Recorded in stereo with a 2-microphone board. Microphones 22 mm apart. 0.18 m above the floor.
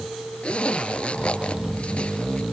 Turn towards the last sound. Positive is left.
turn(degrees=50)  # may be behind; listen again after turning